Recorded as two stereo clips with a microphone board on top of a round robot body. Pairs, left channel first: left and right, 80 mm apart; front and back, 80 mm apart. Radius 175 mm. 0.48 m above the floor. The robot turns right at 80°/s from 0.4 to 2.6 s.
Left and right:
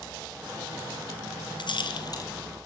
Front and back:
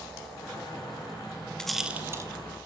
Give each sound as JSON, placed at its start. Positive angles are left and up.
{"t": 1.6, "sound": "a rattle", "azimuth_deg": 80, "distance_m": 2.5}